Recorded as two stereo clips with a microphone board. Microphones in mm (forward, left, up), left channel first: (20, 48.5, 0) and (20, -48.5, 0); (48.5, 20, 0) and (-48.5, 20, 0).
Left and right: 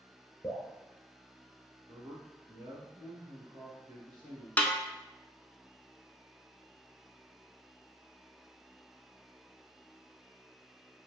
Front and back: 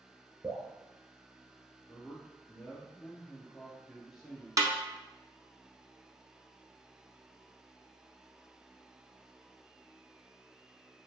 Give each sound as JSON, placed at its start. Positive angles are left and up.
{"t": 0.4, "sound": "dripping", "azimuth_deg": 150, "distance_m": 1.1}
{"t": 1.9, "sound": "a man speaking", "azimuth_deg": -90, "distance_m": 1.6}
{"t": 4.6, "sound": "a snare drum", "azimuth_deg": 155, "distance_m": 0.6}